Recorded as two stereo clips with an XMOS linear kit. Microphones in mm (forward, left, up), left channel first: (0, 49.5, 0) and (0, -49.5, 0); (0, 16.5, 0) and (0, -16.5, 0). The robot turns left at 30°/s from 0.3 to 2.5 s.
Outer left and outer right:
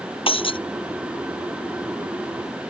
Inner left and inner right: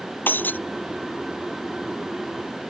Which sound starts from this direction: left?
Breaking glass, at 0.3 s.